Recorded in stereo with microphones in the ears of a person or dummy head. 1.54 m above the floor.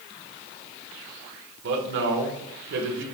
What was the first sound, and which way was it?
A man speaking, 65° right (ahead or behind).